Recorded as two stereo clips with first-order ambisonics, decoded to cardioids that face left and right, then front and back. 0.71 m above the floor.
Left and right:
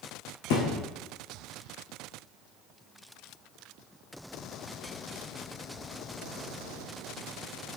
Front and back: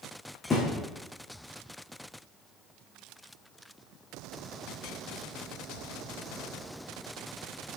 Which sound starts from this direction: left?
A thud, at 0.5 s.